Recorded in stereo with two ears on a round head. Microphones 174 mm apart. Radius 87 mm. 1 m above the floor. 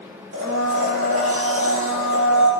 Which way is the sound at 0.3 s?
70° right (ahead or behind).